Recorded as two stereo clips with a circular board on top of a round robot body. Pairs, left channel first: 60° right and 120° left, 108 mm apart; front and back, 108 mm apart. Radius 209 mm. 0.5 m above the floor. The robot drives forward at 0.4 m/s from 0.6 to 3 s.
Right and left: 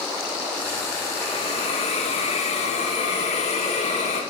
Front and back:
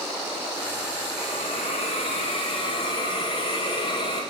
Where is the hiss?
30° right, 1.7 m; by 4.2 s 50° right, 1.1 m.